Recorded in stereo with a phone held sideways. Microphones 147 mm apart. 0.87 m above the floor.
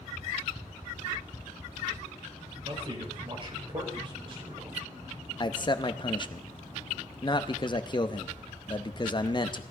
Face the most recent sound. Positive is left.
turn(degrees=35)  # may be behind; listen again after turning